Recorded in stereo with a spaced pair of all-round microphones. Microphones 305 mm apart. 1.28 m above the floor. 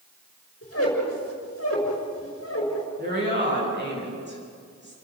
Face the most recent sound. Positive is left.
turn(degrees=-35)  # may be behind; listen again after turning